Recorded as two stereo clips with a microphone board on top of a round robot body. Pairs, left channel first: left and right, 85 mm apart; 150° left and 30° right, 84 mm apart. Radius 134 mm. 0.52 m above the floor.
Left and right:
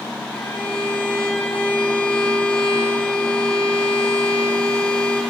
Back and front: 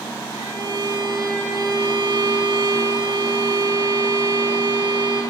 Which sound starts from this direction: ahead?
A violin, at 0.3 s.